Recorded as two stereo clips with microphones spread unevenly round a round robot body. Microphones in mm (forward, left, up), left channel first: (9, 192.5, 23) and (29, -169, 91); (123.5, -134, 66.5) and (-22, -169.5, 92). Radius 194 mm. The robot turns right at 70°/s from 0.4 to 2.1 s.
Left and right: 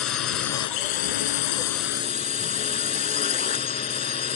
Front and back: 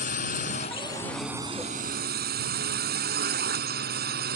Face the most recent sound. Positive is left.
turn(degrees=165)